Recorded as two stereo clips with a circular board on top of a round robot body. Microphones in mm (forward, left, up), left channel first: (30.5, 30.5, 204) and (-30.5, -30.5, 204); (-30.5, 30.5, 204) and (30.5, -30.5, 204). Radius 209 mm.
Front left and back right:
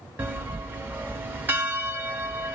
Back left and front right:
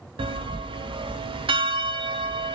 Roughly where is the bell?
Ahead right.